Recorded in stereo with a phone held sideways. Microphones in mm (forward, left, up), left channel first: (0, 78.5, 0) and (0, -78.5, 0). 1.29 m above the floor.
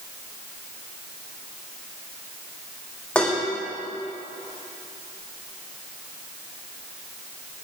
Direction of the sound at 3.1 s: 5° left (ahead or behind).